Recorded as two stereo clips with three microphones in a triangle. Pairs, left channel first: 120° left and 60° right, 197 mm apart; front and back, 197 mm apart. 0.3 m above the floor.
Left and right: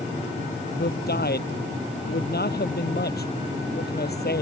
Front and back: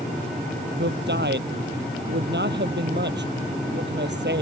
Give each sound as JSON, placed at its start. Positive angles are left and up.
{"t": 0.8, "sound": "a man speaking", "azimuth_deg": 155}